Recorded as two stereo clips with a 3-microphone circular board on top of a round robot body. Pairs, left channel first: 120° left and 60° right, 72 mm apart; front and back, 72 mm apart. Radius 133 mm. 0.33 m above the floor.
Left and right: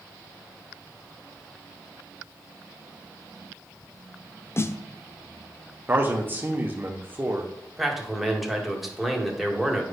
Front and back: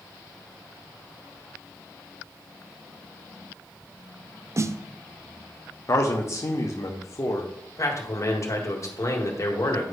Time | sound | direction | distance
4.6 | a snare drum | 155° left | 0.6 m
5.9 | a man speaking | 10° right | 1.3 m
7.8 | a man speaking | 30° left | 2.0 m